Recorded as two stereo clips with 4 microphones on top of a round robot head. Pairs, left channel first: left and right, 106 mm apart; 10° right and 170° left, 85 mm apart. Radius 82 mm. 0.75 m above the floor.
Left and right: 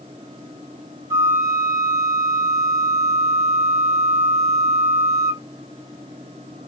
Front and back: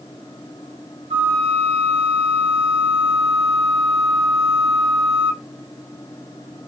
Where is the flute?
155° right, 0.8 m.